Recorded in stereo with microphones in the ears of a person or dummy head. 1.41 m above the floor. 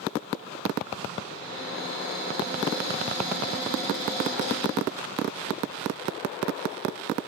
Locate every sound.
1.2 s a cupboard door: 35° left (ahead or behind), 1.7 m